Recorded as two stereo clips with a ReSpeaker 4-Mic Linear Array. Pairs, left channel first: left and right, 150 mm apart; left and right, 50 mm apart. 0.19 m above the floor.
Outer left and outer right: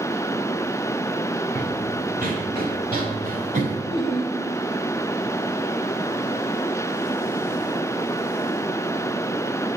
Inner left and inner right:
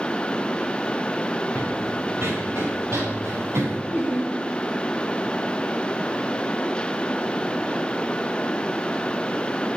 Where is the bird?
I don't hear a bird.